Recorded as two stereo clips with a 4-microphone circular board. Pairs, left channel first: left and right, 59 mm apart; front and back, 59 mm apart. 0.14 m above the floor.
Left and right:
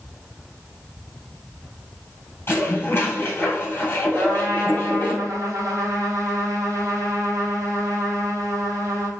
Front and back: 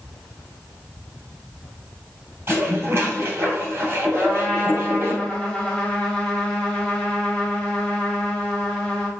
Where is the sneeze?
I don't hear a sneeze.